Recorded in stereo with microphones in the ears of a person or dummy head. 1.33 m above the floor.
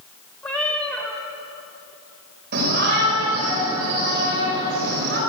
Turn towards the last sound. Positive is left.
turn(degrees=-50)  # may be behind; listen again after turning